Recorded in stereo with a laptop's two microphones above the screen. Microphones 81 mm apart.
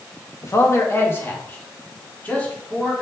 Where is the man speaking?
40° left (ahead or behind), 1.2 m; by 3.0 s 20° left (ahead or behind), 2.5 m.